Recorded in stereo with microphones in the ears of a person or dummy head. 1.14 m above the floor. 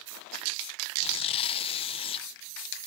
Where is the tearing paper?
30° left (ahead or behind).